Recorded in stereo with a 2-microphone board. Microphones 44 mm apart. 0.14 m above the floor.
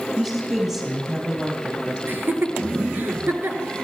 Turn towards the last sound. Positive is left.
turn(degrees=-50)  # may be behind; listen again after turning